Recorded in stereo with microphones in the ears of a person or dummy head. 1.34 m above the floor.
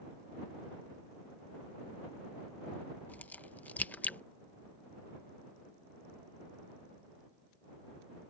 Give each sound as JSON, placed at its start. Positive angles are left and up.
{"t": 3.1, "sound": "a crack", "side_deg": 10}